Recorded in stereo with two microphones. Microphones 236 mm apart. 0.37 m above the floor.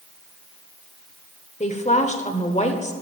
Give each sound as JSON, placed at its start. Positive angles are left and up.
{"t": 1.6, "sound": "a woman speaking", "side_deg": 30, "distance_m": 1.0}